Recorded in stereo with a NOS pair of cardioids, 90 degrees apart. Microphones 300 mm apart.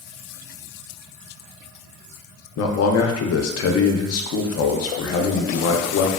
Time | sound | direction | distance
2.6 | a man speaking | 55° left | 0.6 m